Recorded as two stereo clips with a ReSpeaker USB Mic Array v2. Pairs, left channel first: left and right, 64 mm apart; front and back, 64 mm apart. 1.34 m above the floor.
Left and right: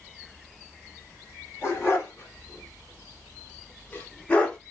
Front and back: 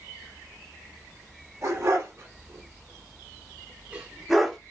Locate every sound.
1.6 s a dog barking: 140° left, 3 m; by 4.6 s 55° left, 0.9 m